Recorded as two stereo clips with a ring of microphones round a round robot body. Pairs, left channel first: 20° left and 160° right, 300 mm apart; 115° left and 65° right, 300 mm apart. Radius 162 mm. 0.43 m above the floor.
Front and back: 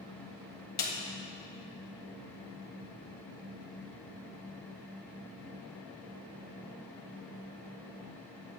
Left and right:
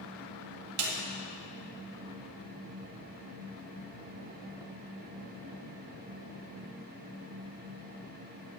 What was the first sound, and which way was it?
A snare drum, 35° right.